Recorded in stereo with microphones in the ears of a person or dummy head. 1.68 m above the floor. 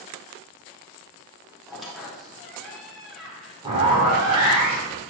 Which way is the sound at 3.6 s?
30° right (ahead or behind).